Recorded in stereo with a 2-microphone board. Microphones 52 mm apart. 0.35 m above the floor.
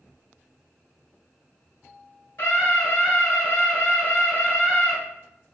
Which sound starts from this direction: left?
A scream, at 2.4 s.